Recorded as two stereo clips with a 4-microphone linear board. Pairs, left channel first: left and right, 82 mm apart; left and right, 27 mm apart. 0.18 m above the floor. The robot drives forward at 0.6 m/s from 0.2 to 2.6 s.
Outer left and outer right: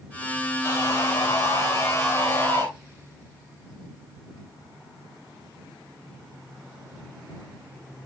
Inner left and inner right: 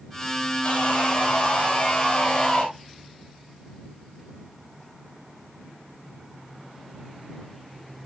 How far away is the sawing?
About 7 m.